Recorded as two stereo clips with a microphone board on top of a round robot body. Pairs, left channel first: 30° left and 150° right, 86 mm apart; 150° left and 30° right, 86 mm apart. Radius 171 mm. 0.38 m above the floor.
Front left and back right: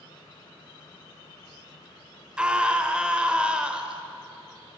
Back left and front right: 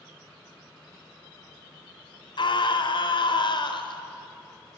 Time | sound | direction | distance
2.4 | a scream | 130° left | 2.5 m